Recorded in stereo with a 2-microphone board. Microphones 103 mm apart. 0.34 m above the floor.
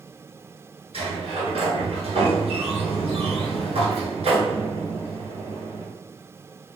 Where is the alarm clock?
No alarm clock in this recording.